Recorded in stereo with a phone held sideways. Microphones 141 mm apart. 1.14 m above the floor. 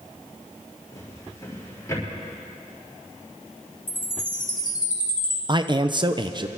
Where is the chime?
90° left, 2.5 m.